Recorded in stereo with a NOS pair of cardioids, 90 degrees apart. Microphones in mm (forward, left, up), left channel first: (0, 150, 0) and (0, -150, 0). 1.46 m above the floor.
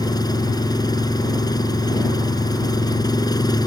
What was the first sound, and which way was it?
An engine running, 15° left.